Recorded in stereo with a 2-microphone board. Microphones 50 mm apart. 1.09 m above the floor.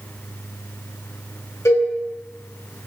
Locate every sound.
1.6 s a cowbell: 80° left, 2 m